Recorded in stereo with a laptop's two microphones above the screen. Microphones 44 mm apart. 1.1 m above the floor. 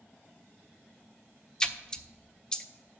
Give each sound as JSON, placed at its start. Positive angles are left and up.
{"t": 1.6, "sound": "a splash", "side_deg": 15, "distance_m": 0.5}